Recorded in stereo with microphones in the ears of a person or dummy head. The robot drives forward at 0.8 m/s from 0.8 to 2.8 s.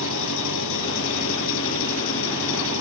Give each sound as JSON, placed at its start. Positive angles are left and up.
{"t": 0.0, "sound": "an engine running", "side_deg": 75}